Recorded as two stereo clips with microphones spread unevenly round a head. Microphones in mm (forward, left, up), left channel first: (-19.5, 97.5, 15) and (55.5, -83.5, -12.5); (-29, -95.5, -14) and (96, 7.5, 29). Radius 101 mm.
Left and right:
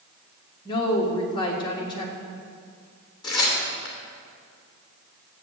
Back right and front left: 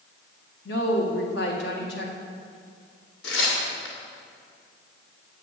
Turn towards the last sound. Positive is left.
turn(degrees=180)